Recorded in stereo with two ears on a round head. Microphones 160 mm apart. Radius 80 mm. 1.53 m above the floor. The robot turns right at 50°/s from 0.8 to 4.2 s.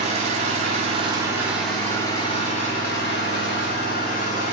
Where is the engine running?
45° right, 3 m; by 4.5 s 125° left, 3 m.